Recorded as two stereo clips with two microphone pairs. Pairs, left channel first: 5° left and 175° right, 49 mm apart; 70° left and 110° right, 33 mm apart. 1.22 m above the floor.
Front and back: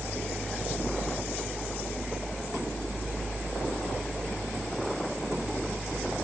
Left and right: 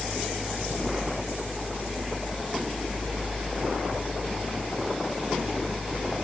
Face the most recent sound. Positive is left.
No sound to turn to.